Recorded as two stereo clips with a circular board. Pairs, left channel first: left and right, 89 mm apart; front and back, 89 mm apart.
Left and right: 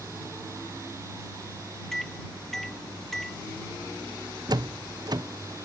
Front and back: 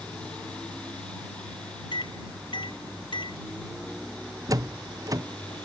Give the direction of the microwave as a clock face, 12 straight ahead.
12 o'clock.